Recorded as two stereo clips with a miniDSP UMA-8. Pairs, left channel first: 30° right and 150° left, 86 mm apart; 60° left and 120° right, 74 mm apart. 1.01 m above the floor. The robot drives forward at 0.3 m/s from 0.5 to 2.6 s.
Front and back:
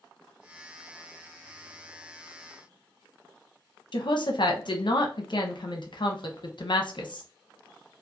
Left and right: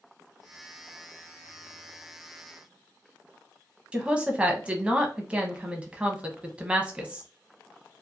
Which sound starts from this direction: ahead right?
A woman speaking, at 3.9 s.